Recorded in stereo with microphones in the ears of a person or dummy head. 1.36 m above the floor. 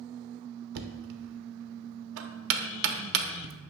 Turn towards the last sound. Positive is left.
turn(degrees=-65)  # may be behind; listen again after turning